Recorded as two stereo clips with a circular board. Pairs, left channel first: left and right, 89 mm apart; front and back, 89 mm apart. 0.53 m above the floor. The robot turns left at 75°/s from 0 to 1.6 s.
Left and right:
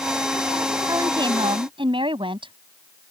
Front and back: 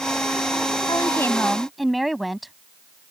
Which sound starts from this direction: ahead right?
A woman speaking, at 0.9 s.